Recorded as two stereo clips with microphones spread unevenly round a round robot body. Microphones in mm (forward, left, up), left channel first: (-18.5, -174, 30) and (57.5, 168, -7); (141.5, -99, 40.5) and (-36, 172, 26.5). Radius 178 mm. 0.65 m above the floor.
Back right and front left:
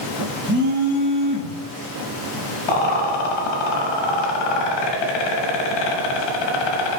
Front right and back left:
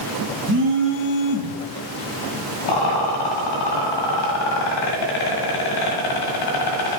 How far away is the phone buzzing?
About 1.4 m.